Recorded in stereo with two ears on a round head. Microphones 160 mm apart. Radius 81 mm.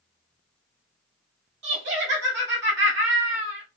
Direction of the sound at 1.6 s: 75° right (ahead or behind).